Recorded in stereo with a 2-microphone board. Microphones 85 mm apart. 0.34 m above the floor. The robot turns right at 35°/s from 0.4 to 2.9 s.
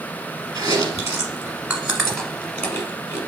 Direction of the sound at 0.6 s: 55° right (ahead or behind).